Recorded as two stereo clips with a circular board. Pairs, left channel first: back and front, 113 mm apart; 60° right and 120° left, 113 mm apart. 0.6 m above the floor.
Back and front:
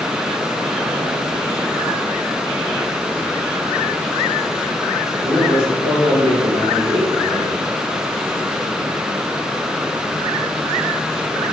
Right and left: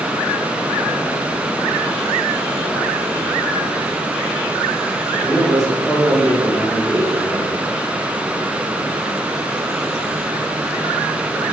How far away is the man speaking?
About 2.5 m.